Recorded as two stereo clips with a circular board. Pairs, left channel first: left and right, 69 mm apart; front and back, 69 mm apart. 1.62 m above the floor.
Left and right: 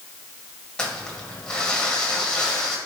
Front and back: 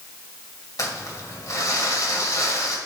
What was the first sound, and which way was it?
Crumpling, 15° left.